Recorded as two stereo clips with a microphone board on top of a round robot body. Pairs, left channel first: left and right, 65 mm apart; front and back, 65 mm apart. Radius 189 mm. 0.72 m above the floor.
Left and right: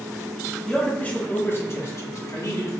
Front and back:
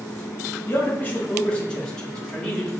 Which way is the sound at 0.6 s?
20° left.